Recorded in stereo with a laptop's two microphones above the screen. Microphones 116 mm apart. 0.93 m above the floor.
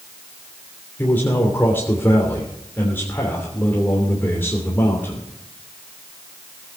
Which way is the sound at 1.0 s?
15° left (ahead or behind).